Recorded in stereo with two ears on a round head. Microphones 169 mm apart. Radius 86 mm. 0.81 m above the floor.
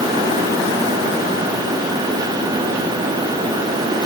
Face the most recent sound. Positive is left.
No sound to turn to.